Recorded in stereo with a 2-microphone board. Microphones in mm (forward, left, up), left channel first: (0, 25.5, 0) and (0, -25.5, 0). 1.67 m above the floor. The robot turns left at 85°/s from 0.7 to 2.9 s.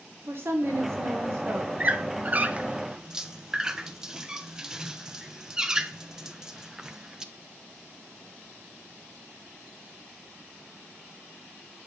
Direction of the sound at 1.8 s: 30° right (ahead or behind).